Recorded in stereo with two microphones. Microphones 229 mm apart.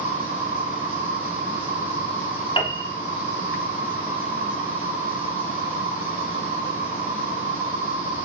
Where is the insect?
25° right (ahead or behind), 6 m.